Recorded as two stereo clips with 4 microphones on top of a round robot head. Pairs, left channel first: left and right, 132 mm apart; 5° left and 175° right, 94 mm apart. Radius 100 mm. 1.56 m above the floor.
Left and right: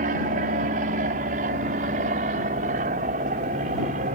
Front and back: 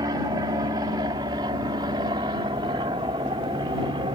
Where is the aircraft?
115° right; by 4.2 s 125° right.